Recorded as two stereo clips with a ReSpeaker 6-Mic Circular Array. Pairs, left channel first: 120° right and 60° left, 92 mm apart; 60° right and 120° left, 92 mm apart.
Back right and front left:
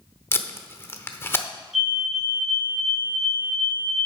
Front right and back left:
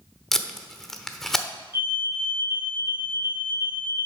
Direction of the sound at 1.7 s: 30° right.